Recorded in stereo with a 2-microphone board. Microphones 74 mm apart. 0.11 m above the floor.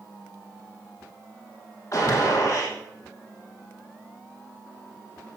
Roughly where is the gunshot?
Left.